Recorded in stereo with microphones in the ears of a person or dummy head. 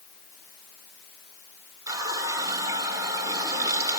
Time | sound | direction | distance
1.9 | a running tap | 15° right (ahead or behind) | 3.5 m